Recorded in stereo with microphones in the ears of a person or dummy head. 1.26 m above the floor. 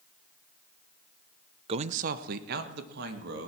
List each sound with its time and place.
1.7 s a man speaking: 30° right (ahead or behind), 0.7 m; by 3.5 s 65° right (ahead or behind), 2.5 m